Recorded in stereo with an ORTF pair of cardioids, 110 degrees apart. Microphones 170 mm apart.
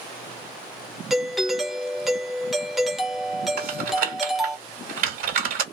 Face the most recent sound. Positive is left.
turn(degrees=-65)